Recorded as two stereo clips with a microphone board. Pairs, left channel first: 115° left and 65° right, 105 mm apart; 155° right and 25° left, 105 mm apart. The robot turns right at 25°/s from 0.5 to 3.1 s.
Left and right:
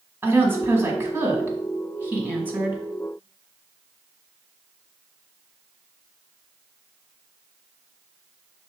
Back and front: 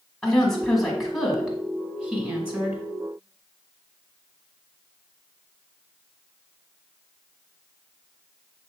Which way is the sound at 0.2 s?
80° right.